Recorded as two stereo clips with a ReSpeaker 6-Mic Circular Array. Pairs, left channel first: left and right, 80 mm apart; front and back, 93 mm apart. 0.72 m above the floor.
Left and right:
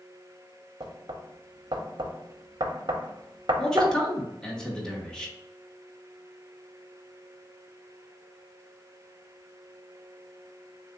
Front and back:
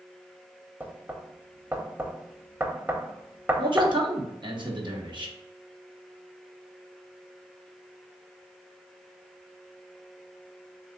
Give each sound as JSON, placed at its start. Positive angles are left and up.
{"t": 0.8, "sound": "knocking", "azimuth_deg": -110, "distance_m": 0.5}
{"t": 3.6, "sound": "a man speaking", "azimuth_deg": 170, "distance_m": 1.0}